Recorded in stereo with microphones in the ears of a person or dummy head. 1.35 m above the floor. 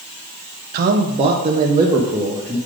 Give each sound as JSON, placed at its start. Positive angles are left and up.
{"t": 0.7, "sound": "a man speaking", "side_deg": -50, "distance_m": 0.5}